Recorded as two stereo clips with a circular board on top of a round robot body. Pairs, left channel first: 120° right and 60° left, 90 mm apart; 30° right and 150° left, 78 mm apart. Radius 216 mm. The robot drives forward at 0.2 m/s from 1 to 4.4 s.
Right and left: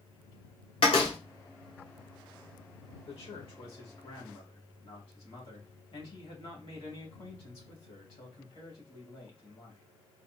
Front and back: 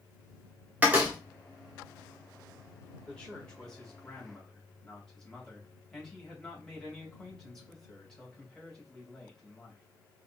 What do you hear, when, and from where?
0.8 s a door slam: 140° right, 1.0 m
3.1 s a man speaking: 105° right, 2 m; by 9.8 s 115° right, 2 m